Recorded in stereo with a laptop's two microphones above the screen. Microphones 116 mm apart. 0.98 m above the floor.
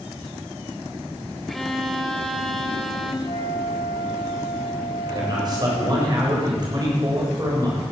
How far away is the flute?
About 2.5 m.